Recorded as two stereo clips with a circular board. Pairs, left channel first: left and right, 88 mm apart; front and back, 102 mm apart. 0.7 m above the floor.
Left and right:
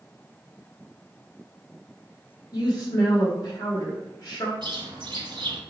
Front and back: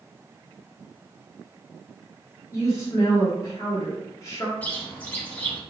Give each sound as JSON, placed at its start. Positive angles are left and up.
{"t": 2.5, "sound": "a woman speaking", "azimuth_deg": 55, "distance_m": 1.2}
{"t": 4.6, "sound": "a bird", "azimuth_deg": -75, "distance_m": 1.2}